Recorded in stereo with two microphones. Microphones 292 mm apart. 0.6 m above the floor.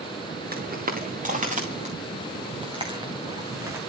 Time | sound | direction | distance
0.5 | footsteps | 30° right (ahead or behind) | 4 m